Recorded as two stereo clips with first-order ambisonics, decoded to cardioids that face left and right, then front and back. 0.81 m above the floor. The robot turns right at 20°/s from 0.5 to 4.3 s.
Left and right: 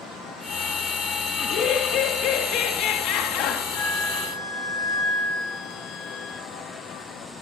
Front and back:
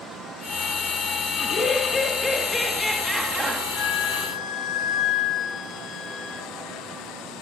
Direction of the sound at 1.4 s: 60° left.